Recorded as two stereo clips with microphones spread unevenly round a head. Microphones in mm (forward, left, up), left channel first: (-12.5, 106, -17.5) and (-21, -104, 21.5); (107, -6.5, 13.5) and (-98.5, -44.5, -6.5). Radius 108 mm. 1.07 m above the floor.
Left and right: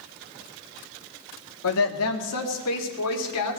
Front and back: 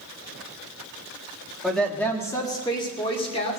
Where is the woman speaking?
100° left, 1.6 m; by 3.6 s 75° left, 3 m.